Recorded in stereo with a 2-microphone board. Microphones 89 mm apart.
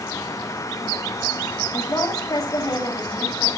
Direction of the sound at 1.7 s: 40° left (ahead or behind).